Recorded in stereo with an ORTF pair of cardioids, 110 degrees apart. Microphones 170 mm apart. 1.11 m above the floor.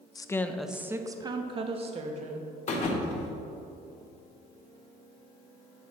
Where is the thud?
45° left, 1.5 m.